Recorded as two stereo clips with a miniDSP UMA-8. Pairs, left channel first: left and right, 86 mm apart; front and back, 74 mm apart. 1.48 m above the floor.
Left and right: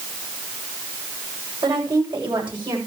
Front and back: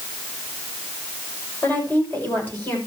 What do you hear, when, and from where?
1.6 s a woman speaking: 60° right, 7.5 m; by 2.8 s 65° right, 7 m